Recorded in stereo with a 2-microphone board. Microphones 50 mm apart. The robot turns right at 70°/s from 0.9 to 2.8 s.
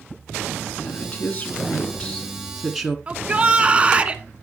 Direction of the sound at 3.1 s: 25° right (ahead or behind).